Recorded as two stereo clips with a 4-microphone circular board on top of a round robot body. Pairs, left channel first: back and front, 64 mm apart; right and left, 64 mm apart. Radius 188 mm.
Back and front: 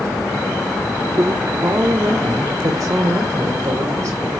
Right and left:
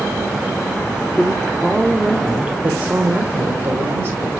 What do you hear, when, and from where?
1.2 s a woman speaking: 15° right, 1.3 m; by 4.3 s 45° left, 2.5 m